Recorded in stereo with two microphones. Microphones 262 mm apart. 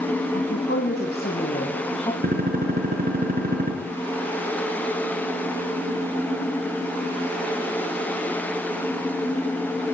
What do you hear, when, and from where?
0.3 s a woman speaking: 45° left (ahead or behind), 4.5 m; by 2.1 s 20° left (ahead or behind), 3.5 m
2.2 s a gunshot: 35° right (ahead or behind), 6.5 m